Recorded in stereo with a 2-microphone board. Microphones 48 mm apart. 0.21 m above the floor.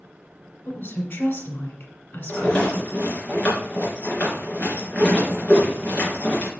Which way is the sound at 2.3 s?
20° left (ahead or behind).